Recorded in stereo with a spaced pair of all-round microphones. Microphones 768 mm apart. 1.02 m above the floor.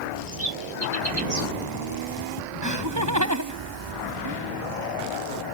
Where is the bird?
10° right (ahead or behind).